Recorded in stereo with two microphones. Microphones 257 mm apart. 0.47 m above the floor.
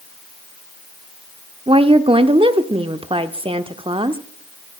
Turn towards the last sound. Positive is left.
turn(degrees=-20)  # may be behind; listen again after turning